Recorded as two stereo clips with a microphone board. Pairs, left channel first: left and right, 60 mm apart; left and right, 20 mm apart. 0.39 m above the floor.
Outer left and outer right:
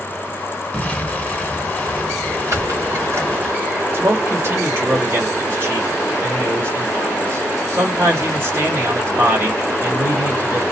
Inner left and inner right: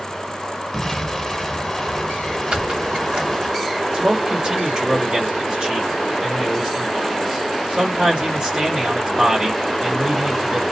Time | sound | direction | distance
0.7 | an explosion | 25° left (ahead or behind) | 1.1 m
2.5 | a squeak | 55° right (ahead or behind) | 1.2 m
3.9 | a man speaking | 40° right (ahead or behind) | 1.7 m